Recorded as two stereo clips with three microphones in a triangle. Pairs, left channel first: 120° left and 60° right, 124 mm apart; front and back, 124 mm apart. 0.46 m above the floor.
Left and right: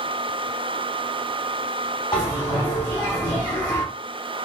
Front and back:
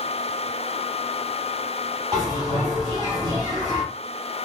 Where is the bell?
150° left, 1.2 m.